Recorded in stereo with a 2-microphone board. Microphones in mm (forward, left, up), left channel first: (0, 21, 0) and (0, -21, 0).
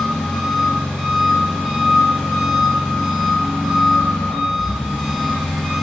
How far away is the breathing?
No breathing in this recording.